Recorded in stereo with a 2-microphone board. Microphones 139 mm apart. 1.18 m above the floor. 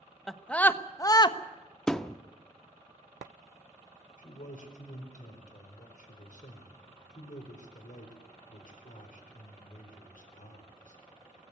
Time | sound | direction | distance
0.3 | a scream | centre (ahead or behind) | 1.1 m
1.9 | a thud | 5° left (ahead or behind) | 0.7 m
4.2 | a man speaking | 70° left (ahead or behind) | 4 m